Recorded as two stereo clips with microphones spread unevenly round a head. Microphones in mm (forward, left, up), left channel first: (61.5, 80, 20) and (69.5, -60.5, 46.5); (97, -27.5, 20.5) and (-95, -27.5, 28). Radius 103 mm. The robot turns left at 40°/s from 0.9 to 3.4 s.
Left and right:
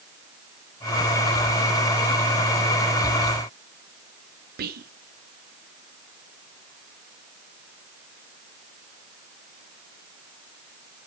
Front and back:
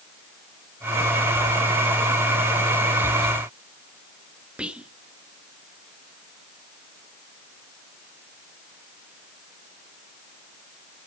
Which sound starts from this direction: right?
Whispering, at 4.6 s.